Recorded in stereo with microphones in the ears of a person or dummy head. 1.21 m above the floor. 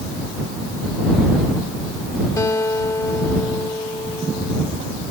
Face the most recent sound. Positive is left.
turn(degrees=20)  # may be behind; listen again after turning